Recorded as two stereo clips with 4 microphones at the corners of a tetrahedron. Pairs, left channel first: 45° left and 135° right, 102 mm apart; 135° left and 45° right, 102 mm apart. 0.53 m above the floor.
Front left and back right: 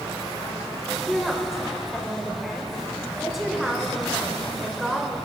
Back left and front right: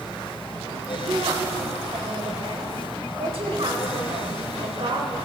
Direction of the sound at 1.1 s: 45° right.